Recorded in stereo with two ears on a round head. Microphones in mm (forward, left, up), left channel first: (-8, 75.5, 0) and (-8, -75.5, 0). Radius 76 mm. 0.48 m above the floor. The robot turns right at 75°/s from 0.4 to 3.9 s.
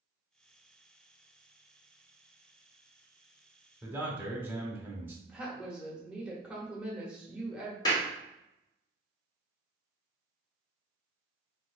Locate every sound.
3.8 s a man speaking: 10° right (ahead or behind), 1.0 m; by 5.2 s 15° right (ahead or behind), 1.0 m
5.3 s a woman speaking: 5° right (ahead or behind), 1.0 m
7.8 s a clap: 25° left (ahead or behind), 1.2 m